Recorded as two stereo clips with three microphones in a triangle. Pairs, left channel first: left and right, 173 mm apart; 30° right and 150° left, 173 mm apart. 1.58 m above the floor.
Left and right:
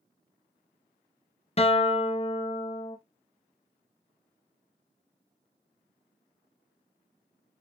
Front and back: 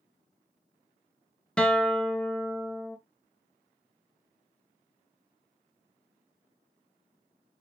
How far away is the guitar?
About 0.6 m.